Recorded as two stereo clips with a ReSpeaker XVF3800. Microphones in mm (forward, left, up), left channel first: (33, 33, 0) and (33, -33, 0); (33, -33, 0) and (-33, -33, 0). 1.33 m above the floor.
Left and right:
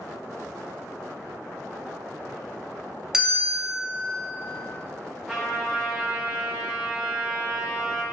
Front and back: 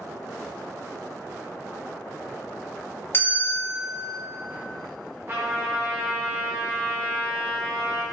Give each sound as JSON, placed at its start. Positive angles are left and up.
{"t": 3.1, "sound": "a bell", "azimuth_deg": -15, "distance_m": 0.6}
{"t": 5.3, "sound": "a trumpet", "azimuth_deg": -170, "distance_m": 0.5}